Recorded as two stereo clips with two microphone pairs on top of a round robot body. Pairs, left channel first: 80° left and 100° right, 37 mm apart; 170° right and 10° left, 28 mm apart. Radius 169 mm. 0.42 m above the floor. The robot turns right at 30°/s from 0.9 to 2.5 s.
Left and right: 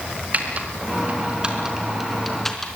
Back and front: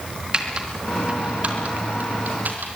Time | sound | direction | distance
0.3 | typing on a keyboard | 50° right | 4 m